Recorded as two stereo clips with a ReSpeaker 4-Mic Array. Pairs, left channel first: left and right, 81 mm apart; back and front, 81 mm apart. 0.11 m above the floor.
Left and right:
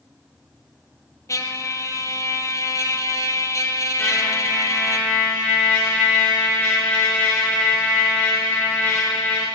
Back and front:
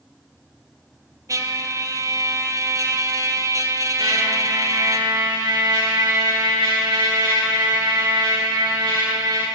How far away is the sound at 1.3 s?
About 1.1 m.